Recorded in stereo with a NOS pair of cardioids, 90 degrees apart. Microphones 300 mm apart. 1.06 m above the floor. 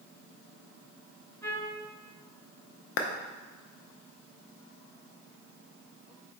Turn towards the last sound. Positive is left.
turn(degrees=45)